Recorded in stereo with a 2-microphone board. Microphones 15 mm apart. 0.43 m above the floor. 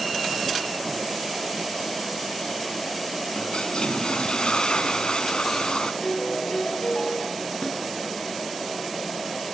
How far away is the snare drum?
About 7.5 m.